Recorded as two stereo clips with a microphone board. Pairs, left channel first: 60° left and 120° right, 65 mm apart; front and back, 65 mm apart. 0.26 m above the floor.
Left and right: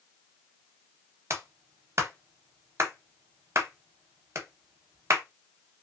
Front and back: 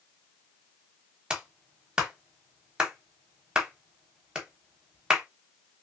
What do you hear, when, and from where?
1.3 s a clap: 105° right, 1.0 m